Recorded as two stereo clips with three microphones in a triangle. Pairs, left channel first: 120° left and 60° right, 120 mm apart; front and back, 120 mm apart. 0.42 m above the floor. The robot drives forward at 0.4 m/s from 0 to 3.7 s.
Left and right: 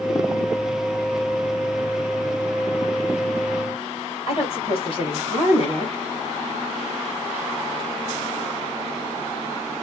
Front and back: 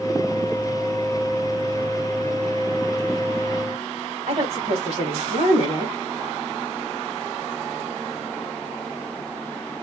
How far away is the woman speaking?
About 2.0 m.